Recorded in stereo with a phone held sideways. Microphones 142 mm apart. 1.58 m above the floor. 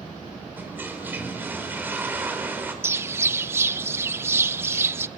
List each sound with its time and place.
0.6 s a toilet flushing: 15° right (ahead or behind), 4.5 m
2.8 s a bird: 15° right (ahead or behind), 0.8 m